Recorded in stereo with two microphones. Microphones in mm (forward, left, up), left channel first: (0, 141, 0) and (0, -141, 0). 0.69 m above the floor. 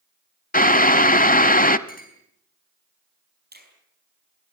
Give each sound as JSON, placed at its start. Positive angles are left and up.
{"t": 0.5, "sound": "boiling", "side_deg": 30, "distance_m": 0.7}
{"t": 1.9, "sound": "a clink", "side_deg": 30, "distance_m": 4.5}
{"t": 3.5, "sound": "a finger snap", "side_deg": -35, "distance_m": 5.0}